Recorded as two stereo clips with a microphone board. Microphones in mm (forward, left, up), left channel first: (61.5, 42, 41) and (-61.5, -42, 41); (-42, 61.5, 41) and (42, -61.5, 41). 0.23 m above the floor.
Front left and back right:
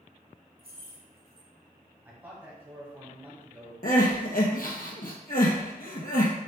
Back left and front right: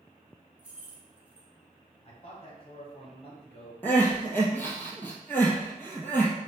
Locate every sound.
0.6 s keys jangling: 130° right, 1.2 m
2.0 s a man speaking: 145° left, 1.3 m
3.8 s crying: 50° left, 1.1 m